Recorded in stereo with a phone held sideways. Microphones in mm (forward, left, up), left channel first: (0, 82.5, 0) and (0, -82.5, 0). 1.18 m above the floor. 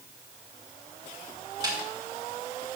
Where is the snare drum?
25° right (ahead or behind), 2.5 m.